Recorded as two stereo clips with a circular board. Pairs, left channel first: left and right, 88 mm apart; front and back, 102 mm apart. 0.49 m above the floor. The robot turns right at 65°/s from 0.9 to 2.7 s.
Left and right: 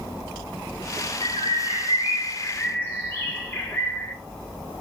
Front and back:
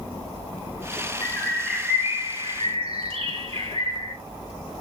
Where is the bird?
60° left, 2 m; by 4.1 s 155° left, 2 m.